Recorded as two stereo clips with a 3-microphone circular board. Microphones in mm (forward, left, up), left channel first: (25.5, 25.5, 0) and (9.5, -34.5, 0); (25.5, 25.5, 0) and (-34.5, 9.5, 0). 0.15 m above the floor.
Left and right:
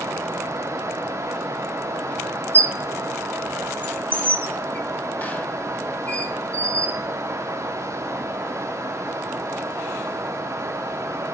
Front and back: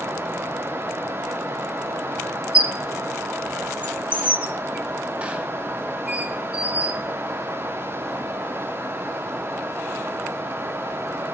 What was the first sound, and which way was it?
A squeak, 130° left.